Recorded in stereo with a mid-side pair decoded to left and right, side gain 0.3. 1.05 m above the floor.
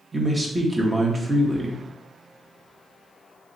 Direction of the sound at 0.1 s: 30° right.